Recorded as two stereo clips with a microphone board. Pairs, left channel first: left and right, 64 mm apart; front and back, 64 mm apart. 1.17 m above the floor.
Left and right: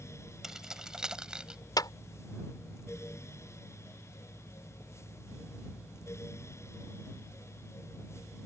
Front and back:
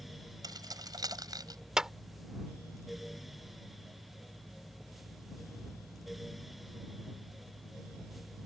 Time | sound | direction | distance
0.4 | keys jangling | 170° right | ?
1.8 | a clap | 100° left | ?